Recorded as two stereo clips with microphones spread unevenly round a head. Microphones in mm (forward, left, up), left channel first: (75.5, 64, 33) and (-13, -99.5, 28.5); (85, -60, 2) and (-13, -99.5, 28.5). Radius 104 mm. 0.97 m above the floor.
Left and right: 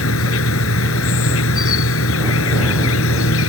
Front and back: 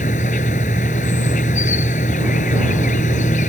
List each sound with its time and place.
0.0 s an insect: 65° left